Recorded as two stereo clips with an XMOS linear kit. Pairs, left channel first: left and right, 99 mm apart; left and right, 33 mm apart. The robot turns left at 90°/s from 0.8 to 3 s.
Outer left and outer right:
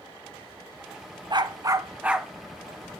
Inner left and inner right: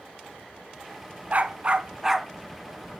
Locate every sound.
1.3 s a dog barking: 90° right, 0.7 m; by 2.3 s straight behind, 0.7 m